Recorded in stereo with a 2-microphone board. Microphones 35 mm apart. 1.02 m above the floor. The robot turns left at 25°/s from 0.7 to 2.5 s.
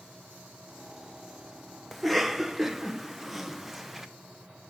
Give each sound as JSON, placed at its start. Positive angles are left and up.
{"t": 1.9, "sound": "a cough", "side_deg": 0, "distance_m": 0.9}